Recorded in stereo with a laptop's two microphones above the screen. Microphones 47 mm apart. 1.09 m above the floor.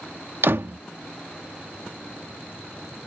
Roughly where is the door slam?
Right.